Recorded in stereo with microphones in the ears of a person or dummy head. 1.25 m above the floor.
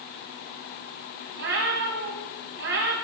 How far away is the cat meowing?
About 1.6 m.